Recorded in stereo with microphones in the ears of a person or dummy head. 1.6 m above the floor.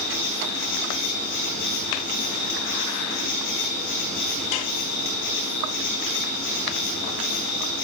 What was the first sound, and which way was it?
An insect, 60° left (ahead or behind).